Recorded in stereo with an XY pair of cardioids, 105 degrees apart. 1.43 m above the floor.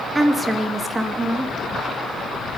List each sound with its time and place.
0.1 s a woman speaking: 20° right, 2 m